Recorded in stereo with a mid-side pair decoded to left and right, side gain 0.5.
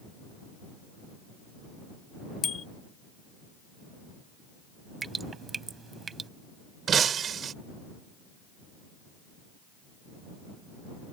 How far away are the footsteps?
No footsteps in this recording.